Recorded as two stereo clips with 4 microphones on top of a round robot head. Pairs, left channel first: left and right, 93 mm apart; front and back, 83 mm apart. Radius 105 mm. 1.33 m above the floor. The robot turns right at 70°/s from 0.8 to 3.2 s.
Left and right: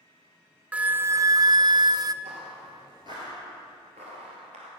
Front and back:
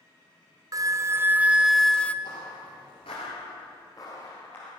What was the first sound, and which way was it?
A flute, 160° right.